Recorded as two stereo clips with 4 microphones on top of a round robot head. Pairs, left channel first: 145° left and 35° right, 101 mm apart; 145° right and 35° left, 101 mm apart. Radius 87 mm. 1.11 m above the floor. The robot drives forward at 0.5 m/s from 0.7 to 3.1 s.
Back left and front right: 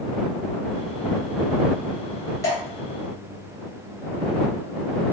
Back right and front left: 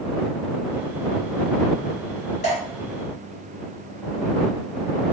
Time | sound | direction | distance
2.4 | dripping | 155° right | 2.5 m